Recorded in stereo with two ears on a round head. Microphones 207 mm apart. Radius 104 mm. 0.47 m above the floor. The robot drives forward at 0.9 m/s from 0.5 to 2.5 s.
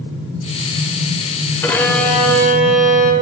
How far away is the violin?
About 0.7 m.